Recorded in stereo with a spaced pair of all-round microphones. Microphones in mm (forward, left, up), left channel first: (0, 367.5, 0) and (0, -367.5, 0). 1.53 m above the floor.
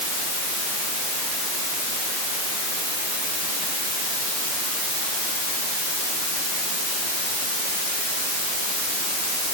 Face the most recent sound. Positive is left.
No sound to turn to.